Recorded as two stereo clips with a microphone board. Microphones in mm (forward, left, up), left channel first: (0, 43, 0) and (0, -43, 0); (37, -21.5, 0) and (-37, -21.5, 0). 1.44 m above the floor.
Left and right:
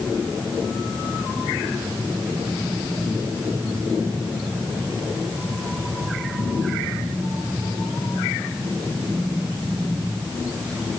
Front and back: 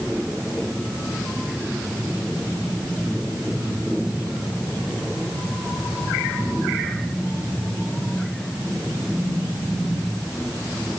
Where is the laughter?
I don't hear laughter.